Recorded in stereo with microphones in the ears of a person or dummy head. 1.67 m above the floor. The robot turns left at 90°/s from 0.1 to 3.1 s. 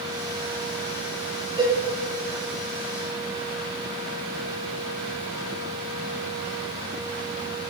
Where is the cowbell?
20° right (ahead or behind), 1.7 m; by 1.7 s 5° right (ahead or behind), 1.7 m.